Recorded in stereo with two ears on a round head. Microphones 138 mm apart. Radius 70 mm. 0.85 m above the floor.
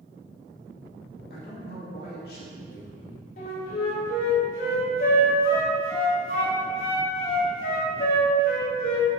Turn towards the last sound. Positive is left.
turn(degrees=60)  # may be behind; listen again after turning